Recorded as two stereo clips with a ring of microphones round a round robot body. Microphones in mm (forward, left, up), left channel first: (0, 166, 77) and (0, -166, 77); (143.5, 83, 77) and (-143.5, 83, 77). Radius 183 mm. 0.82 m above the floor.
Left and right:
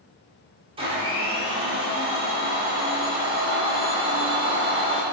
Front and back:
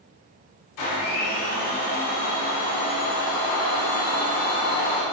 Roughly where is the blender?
Ahead.